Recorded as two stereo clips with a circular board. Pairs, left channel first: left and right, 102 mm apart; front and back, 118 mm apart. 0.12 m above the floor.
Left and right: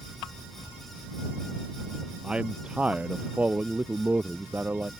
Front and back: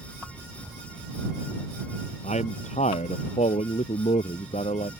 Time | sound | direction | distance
2.2 | a man speaking | 10° right | ?